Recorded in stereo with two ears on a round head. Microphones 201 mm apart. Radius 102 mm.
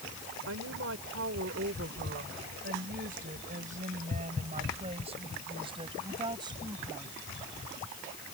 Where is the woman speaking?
60° right (ahead or behind); by 7.1 s 15° right (ahead or behind).